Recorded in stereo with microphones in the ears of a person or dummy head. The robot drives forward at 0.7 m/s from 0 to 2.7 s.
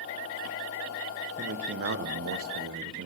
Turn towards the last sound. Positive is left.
turn(degrees=-60)  # may be behind; listen again after turning